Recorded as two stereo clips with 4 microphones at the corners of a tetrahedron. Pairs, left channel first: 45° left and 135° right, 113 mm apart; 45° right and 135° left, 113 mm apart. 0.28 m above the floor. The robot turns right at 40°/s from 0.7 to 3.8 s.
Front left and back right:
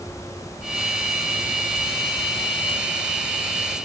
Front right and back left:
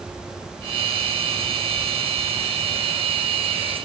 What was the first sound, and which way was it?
Only background noise.